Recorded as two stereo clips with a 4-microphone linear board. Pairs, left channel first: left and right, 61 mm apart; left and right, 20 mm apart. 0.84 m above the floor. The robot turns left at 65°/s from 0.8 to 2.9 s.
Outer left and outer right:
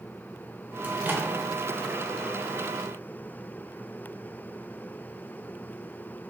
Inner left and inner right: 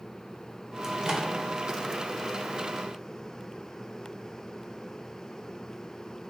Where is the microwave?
25° right (ahead or behind), 0.5 m; by 1.3 s 35° right (ahead or behind), 0.5 m.